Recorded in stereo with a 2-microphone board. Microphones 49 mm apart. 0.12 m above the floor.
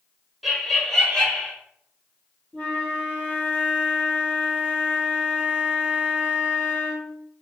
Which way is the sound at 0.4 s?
Centre (ahead or behind).